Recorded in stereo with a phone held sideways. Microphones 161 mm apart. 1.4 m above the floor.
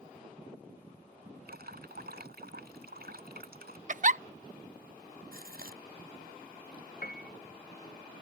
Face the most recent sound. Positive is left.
turn(degrees=65)  # may be behind; listen again after turning